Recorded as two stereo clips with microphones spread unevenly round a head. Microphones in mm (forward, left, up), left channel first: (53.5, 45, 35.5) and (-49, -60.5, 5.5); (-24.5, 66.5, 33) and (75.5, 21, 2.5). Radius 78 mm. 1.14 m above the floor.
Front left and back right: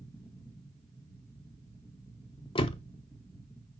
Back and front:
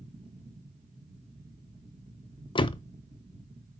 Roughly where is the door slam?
Left.